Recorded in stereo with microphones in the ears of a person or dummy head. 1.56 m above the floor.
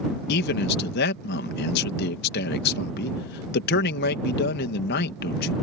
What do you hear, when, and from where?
0.3 s a man speaking: 65° left (ahead or behind)